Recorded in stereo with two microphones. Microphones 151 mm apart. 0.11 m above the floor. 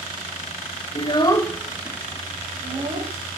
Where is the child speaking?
35° left (ahead or behind), 1.0 m; by 3.1 s 40° right (ahead or behind), 2.5 m.